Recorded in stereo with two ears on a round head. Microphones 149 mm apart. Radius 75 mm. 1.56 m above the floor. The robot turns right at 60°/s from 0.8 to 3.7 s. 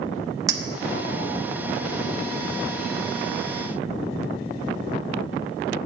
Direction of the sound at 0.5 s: 20° right (ahead or behind).